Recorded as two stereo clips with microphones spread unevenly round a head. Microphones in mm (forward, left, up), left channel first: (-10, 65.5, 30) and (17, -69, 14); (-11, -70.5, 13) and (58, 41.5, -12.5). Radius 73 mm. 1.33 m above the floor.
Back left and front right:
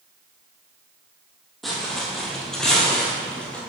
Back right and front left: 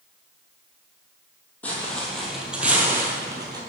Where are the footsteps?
Straight behind, 1.6 m; by 3.6 s 65° left, 1.3 m.